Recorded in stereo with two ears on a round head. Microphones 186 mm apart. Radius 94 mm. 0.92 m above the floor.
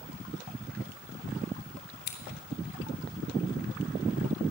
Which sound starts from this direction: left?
Scissors, at 2.1 s.